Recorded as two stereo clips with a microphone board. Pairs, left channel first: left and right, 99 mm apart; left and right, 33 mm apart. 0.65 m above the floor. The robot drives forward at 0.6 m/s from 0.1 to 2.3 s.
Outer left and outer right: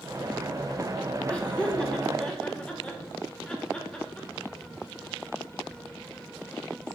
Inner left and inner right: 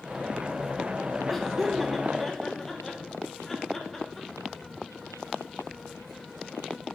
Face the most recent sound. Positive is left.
turn(degrees=10)  # may be behind; listen again after turning